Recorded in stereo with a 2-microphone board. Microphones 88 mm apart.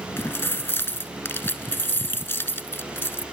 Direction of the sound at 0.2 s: 25° left (ahead or behind).